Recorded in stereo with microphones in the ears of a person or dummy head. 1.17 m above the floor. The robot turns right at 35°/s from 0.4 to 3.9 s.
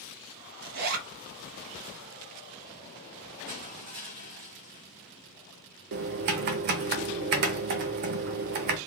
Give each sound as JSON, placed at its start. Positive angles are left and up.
{"t": 0.6, "sound": "a zipper", "side_deg": -55, "distance_m": 0.6}
{"t": 3.5, "sound": "crushing", "side_deg": -35, "distance_m": 1.2}
{"t": 5.9, "sound": "typing on a keyboard", "side_deg": -50, "distance_m": 0.5}